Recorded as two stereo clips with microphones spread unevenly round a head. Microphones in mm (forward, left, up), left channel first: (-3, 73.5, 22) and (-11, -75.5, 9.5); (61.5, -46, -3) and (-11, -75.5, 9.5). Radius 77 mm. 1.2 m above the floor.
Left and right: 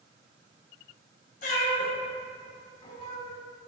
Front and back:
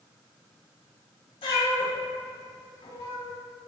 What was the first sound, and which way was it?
A cat meowing, 55° left.